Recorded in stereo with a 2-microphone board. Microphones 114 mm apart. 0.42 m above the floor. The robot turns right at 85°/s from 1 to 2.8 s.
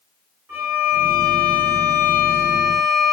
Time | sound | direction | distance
0.5 | a violin | 140° right | 1.2 m